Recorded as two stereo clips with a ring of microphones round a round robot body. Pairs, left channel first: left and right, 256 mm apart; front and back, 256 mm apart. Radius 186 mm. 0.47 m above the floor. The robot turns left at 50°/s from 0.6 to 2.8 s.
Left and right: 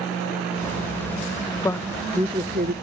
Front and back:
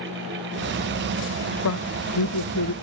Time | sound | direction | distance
1.6 | a woman speaking | 15° left | ?